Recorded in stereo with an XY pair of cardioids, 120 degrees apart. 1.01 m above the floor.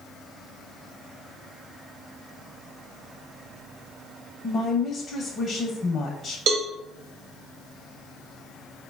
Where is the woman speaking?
45° left, 0.7 m.